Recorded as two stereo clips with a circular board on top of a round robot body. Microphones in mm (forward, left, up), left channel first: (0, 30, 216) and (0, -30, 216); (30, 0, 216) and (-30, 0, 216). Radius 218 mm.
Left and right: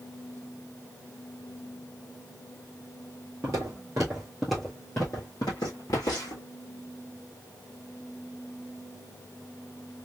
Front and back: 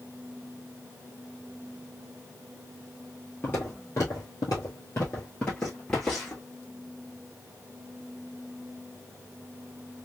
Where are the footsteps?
60° right, 1.1 m; by 6.4 s 85° left, 1.4 m.